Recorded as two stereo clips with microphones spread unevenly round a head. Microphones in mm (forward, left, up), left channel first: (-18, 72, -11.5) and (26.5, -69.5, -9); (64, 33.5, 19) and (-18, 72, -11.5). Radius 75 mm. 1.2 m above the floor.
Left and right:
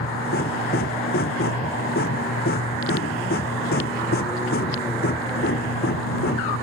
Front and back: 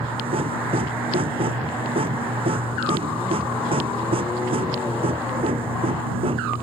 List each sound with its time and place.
0.0 s a machine running: 135° left